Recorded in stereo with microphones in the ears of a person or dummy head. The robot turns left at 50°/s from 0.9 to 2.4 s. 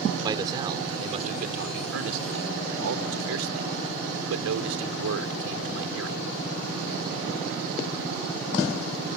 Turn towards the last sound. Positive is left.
turn(degrees=-95)